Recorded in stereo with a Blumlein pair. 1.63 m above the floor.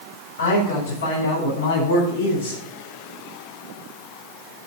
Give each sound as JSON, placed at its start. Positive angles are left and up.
{"t": 0.4, "sound": "a man speaking", "azimuth_deg": 65, "distance_m": 6.5}